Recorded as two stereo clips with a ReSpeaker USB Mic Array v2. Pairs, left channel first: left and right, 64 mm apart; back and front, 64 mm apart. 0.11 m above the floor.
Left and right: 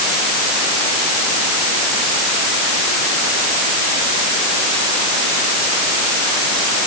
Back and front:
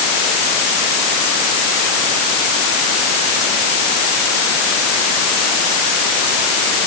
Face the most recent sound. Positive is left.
No sound to turn to.